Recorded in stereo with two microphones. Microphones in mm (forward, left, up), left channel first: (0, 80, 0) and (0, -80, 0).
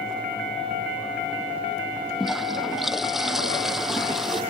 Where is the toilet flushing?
Centre (ahead or behind).